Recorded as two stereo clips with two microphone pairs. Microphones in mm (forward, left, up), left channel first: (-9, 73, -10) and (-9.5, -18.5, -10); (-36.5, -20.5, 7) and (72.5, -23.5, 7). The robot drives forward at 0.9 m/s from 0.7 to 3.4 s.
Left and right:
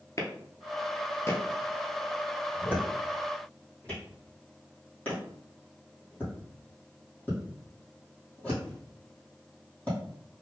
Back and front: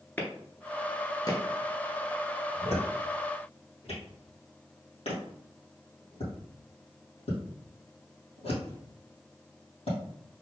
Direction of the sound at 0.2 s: 110° left.